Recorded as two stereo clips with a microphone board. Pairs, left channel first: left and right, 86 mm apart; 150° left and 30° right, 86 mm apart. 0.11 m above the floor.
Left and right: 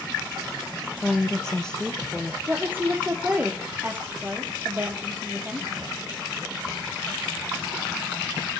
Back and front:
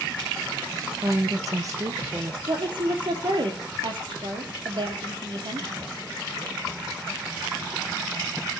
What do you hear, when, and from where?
1.0 s a woman speaking: 10° left, 2 m
2.5 s a woman speaking: 25° right, 3.5 m